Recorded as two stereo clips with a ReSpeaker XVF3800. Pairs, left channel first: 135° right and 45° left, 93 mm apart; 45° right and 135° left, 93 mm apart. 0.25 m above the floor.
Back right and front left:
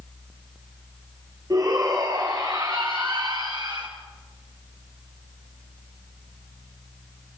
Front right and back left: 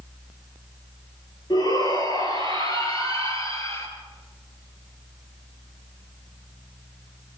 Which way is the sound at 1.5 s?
5° right.